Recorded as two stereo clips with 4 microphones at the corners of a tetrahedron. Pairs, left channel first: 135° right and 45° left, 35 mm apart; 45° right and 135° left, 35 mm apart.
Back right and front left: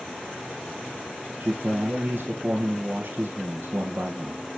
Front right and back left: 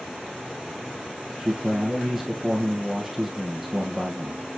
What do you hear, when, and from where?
1.4 s a man speaking: 55° left, 2.5 m